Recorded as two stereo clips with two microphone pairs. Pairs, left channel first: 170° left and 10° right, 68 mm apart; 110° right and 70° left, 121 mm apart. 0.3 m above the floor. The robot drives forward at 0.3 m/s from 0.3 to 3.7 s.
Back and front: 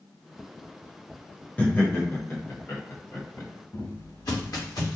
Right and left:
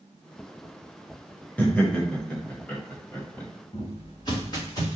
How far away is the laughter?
About 0.9 m.